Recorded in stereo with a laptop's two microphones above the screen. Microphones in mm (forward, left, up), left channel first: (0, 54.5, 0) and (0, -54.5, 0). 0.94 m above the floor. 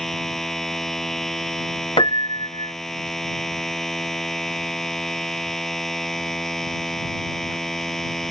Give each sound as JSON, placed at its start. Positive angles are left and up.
{"t": 0.0, "sound": "a machine running", "side_deg": 0}
{"t": 2.0, "sound": "a piano", "side_deg": 50}